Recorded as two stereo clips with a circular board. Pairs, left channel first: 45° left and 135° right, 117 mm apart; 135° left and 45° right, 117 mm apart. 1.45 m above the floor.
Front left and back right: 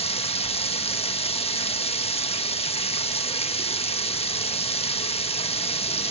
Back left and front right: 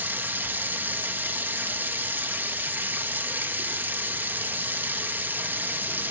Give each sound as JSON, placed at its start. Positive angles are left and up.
{"t": 0.0, "sound": "running water", "azimuth_deg": 25, "distance_m": 1.2}